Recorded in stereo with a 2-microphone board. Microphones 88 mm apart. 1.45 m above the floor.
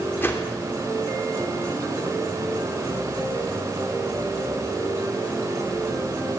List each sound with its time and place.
0.2 s a whoosh: 25° left (ahead or behind), 2.5 m